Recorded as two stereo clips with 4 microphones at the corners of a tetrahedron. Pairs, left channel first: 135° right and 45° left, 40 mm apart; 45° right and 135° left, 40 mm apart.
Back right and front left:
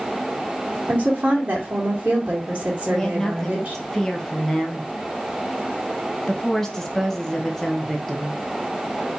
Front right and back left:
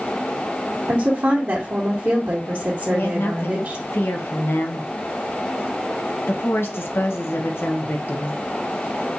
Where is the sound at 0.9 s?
100° left, 1.7 m.